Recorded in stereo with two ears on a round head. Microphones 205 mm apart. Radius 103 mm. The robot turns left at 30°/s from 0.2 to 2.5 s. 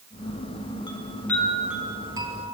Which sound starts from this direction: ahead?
A chime, at 0.9 s.